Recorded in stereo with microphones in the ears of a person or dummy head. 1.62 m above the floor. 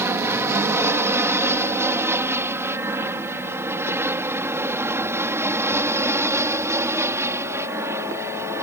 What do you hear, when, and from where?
0.0 s an aircraft: 10° right (ahead or behind); by 8.6 s 15° right (ahead or behind)